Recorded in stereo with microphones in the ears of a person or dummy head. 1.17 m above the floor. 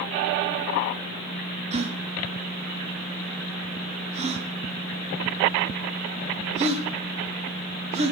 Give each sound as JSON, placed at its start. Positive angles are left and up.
{"t": 1.7, "sound": "a gasp", "side_deg": -35, "distance_m": 1.3}